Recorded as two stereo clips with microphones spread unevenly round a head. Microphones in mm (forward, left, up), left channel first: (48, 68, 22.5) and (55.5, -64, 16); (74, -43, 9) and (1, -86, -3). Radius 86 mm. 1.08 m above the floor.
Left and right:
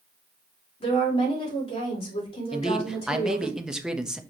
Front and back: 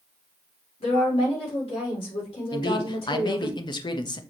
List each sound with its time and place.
0.8 s a woman speaking: 50° left, 4.5 m
2.5 s a man speaking: straight ahead, 1.1 m